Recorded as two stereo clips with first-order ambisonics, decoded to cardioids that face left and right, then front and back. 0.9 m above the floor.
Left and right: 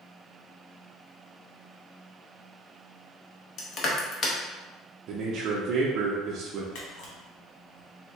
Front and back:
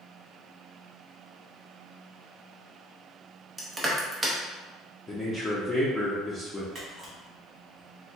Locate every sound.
3.6 s crushing: 105° left, 0.5 m
5.1 s a man speaking: 75° right, 0.5 m
6.8 s a camera shutter: 100° left, 1.1 m